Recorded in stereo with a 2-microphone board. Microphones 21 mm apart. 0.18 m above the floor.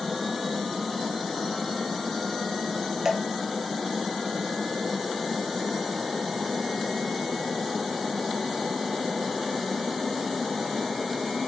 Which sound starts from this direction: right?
Dripping, at 3.0 s.